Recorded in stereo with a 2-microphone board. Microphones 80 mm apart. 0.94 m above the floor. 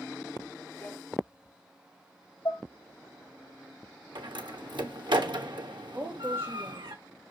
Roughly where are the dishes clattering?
Left.